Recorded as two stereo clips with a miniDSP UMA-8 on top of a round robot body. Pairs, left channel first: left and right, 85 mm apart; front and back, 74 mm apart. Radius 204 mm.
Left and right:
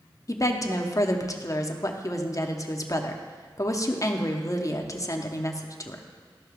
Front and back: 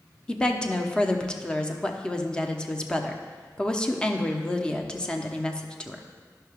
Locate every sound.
0.3 s a woman speaking: 70° left, 1.0 m